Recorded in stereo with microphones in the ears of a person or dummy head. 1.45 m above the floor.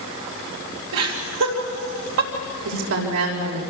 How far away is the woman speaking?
About 5 m.